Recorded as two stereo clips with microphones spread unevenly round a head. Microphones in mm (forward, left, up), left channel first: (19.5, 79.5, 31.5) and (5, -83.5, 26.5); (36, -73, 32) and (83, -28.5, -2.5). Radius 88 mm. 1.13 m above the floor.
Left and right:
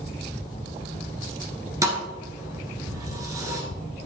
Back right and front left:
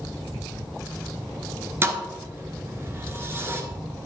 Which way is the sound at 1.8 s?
25° right.